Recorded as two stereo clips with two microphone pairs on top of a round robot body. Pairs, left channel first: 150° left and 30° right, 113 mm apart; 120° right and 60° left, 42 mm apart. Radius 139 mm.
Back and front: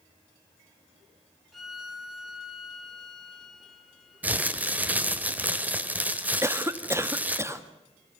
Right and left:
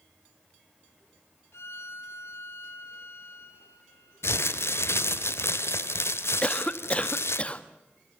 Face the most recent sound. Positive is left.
turn(degrees=-80)